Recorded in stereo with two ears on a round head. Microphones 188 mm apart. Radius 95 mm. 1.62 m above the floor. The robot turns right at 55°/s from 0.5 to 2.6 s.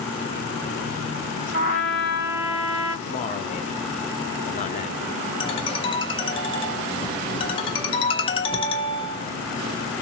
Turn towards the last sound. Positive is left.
turn(degrees=25)  # may be behind; listen again after turning